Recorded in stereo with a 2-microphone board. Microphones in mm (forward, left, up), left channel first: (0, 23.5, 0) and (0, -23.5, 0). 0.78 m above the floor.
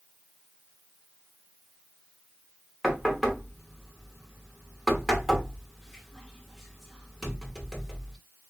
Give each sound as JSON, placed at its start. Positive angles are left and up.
{"t": 2.8, "sound": "knocking", "side_deg": -5, "distance_m": 1.0}